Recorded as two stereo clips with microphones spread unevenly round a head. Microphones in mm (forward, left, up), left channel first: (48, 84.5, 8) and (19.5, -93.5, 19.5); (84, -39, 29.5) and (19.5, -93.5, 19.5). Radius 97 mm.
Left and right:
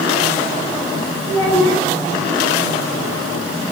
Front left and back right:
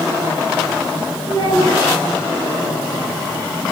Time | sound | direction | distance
1.2 | a child speaking | 165° left | 4.5 m